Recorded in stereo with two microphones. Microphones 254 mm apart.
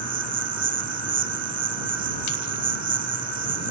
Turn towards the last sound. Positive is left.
turn(degrees=-75)  # may be behind; listen again after turning